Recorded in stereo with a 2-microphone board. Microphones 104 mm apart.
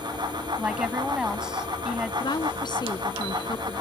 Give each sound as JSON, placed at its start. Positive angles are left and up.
{"t": 0.6, "sound": "a woman speaking", "side_deg": -10}
{"t": 2.2, "sound": "a woman speaking", "side_deg": 45}